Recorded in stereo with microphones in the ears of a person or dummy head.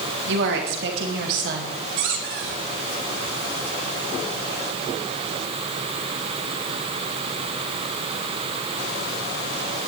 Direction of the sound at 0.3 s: 75° right (ahead or behind).